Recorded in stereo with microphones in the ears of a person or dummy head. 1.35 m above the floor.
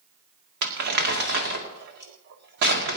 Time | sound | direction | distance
0.6 | crumpling | 55° right (ahead or behind) | 2.0 m